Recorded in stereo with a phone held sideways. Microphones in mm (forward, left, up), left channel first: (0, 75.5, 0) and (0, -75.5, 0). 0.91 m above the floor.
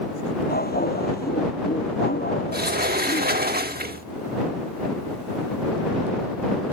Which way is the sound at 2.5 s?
90° right.